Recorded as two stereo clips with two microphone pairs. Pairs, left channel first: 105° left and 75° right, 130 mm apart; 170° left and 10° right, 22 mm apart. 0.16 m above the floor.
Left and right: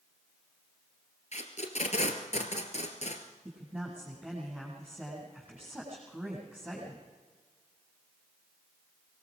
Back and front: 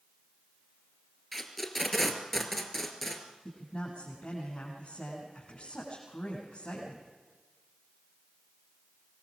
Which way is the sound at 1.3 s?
85° left.